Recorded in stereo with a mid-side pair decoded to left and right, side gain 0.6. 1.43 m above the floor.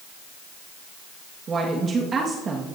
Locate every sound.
1.5 s a woman speaking: 35° right, 2.0 m